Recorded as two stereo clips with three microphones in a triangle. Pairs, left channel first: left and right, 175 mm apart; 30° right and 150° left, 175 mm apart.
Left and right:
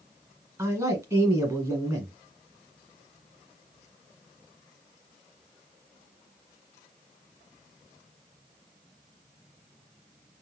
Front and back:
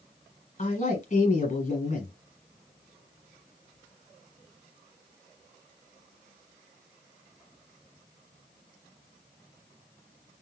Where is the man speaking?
25° right, 1.5 m.